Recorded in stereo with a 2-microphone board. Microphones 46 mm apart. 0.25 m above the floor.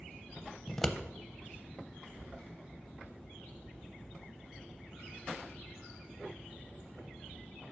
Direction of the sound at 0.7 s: 10° left (ahead or behind).